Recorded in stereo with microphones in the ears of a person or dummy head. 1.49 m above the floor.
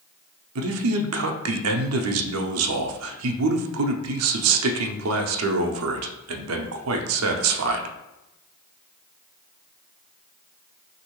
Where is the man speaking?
80° right, 0.6 m.